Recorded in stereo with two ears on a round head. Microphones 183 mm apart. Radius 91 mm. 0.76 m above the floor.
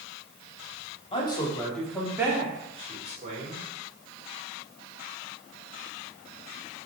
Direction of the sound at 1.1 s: 25° left (ahead or behind).